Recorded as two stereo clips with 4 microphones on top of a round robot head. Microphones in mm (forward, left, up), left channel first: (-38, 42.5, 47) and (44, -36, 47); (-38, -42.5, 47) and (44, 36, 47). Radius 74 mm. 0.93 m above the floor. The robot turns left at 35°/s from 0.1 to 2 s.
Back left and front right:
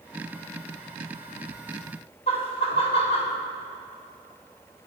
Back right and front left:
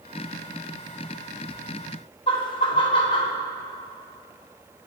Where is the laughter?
175° left, 2 m.